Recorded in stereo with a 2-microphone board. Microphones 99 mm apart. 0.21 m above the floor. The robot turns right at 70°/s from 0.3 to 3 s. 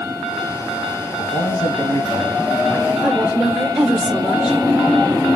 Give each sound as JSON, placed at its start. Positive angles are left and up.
{"t": 1.2, "sound": "a man speaking", "azimuth_deg": 80, "distance_m": 3.0}
{"t": 3.0, "sound": "a woman speaking", "side_deg": -5, "distance_m": 4.0}